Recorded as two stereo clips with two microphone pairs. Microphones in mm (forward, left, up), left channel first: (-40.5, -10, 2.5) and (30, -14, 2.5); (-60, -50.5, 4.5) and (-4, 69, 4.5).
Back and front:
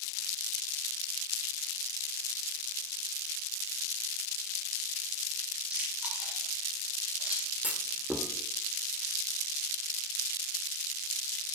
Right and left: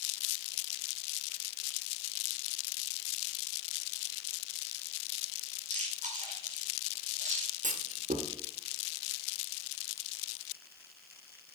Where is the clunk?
60° left, 0.9 m.